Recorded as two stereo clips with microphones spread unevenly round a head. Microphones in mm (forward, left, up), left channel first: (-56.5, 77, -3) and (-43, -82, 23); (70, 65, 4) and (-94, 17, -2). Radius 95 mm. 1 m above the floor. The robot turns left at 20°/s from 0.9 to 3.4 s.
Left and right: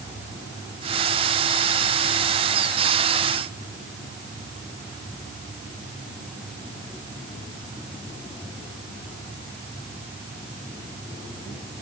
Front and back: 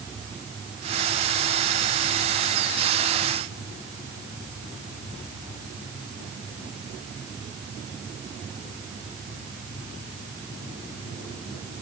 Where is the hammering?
No hammering in this recording.